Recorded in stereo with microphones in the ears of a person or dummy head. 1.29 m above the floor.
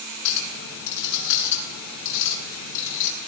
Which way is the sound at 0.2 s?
60° left (ahead or behind).